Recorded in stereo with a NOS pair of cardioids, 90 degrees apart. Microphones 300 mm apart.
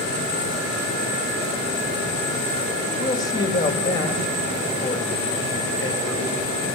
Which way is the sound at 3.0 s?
15° left.